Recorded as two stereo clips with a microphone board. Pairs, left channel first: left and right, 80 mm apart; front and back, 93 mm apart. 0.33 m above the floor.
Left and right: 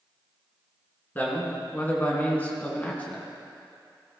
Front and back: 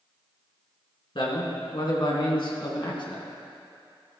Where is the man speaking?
25° left, 3 m; by 3.2 s 20° left, 2 m.